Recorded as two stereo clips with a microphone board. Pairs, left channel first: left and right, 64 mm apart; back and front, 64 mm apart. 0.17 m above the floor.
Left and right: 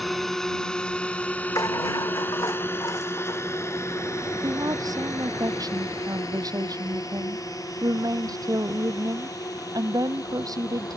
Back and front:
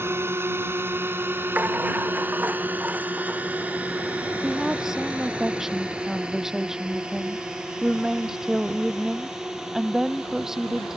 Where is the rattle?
65° left.